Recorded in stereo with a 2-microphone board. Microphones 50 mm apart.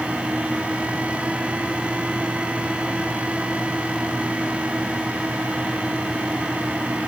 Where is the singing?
I don't hear singing.